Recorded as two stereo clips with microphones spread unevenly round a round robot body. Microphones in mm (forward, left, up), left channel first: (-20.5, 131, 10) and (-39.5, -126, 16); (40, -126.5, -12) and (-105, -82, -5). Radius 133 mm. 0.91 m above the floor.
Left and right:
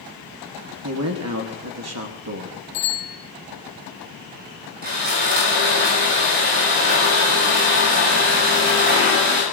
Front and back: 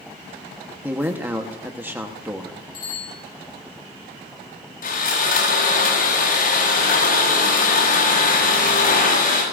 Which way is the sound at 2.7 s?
45° left.